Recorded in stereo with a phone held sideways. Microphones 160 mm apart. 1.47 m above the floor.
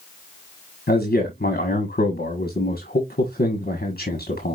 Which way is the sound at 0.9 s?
75° left (ahead or behind).